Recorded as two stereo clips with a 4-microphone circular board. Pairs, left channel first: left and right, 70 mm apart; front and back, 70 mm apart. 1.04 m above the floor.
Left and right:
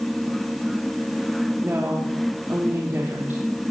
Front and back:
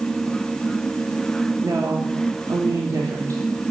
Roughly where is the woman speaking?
Behind right.